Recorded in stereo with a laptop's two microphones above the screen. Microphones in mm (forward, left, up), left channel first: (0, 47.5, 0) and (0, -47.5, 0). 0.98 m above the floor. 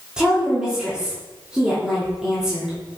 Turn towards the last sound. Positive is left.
turn(degrees=-5)  # may be behind; listen again after turning